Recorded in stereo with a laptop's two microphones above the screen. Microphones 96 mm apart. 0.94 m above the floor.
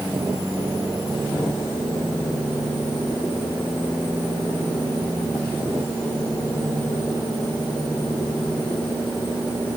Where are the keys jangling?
No keys jangling in this recording.